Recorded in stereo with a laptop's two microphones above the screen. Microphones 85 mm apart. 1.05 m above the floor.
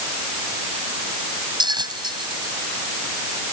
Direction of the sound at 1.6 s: 60° right (ahead or behind).